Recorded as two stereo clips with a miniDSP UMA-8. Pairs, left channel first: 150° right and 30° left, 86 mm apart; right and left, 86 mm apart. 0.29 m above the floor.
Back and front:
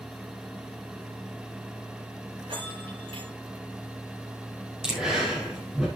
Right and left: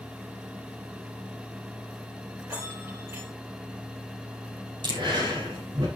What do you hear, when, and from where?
2.4 s a bell: 30° left, 6.5 m
4.8 s breathing: 110° left, 6 m